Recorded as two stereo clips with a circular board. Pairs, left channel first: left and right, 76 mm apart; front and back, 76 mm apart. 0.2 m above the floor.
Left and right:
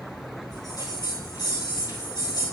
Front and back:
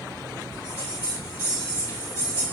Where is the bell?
55° left, 5 m.